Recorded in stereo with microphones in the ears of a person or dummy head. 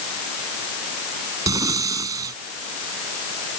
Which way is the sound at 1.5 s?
20° right (ahead or behind).